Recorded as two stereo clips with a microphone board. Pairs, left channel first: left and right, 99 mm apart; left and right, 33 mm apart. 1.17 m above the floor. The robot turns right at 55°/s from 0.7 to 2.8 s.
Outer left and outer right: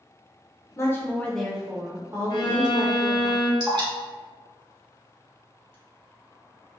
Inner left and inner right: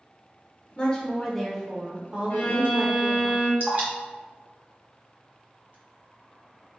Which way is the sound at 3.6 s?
45° right (ahead or behind).